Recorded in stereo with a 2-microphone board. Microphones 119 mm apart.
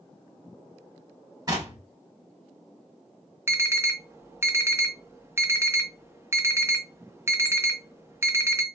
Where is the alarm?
20° right (ahead or behind), 0.5 m.